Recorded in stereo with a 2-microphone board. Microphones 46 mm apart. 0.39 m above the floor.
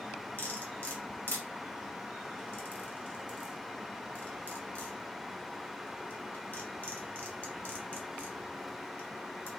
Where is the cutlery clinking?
45° left (ahead or behind), 1.5 m.